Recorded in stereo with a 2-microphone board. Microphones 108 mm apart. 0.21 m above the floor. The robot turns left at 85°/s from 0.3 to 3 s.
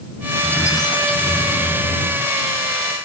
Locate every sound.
0.4 s a squeak: 175° left; by 2.3 s 10° left